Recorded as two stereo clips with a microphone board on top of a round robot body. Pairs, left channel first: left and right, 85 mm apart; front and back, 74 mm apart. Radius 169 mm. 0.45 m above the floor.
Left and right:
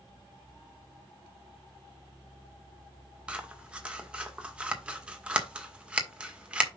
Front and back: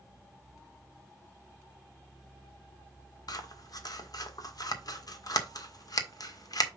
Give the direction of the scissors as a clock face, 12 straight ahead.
12 o'clock.